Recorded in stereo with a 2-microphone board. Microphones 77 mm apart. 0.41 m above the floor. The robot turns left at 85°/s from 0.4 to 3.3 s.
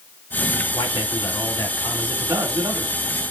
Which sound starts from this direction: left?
A man speaking, at 0.7 s.